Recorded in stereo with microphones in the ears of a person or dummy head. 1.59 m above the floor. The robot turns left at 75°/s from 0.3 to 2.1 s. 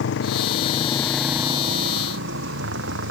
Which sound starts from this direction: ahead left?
A motorcycle, at 0.0 s.